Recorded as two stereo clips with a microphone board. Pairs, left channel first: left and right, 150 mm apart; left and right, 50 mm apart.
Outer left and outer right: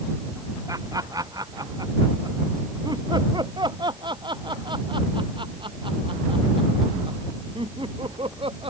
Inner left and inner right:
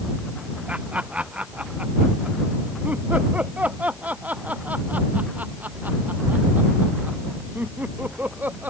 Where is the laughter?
25° right (ahead or behind); by 8.7 s 35° right (ahead or behind).